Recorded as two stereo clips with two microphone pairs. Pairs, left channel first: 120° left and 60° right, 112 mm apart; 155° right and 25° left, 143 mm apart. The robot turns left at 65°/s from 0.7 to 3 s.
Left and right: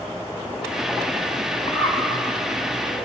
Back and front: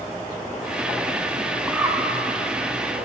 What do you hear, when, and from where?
1.7 s a bird: 105° left, 1.1 m; by 2.0 s 85° left, 1.1 m